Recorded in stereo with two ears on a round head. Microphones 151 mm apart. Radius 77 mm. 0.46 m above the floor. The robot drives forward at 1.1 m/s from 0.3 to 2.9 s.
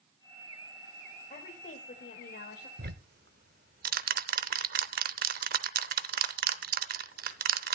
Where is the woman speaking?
40° left (ahead or behind), 1.7 m; by 2.7 s 55° left (ahead or behind), 1.4 m.